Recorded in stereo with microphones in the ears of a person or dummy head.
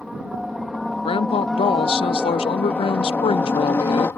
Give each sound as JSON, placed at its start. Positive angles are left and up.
{"t": 0.0, "sound": "a helicopter", "side_deg": -5}
{"t": 1.1, "sound": "a woman speaking", "side_deg": 20}